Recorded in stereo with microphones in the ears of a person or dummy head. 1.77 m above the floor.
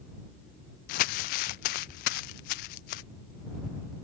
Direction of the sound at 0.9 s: 50° left (ahead or behind).